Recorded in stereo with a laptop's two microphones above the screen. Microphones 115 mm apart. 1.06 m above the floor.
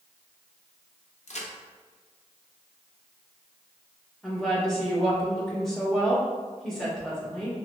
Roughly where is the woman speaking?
Centre.